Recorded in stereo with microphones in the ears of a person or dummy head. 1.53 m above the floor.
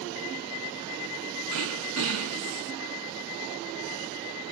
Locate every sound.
1.5 s throat clearing: 70° right (ahead or behind), 0.7 m